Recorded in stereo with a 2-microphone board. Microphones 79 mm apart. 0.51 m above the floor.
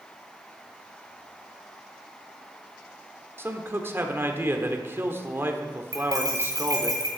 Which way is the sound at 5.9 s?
45° right (ahead or behind).